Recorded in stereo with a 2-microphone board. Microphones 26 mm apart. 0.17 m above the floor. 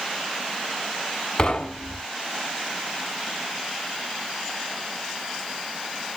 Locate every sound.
1.4 s knocking: 25° left (ahead or behind), 0.8 m